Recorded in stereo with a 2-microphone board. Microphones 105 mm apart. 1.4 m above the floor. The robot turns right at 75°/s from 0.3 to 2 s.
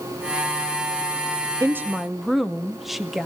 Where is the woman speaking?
30° right (ahead or behind), 0.6 m; by 3.3 s centre (ahead or behind), 0.6 m.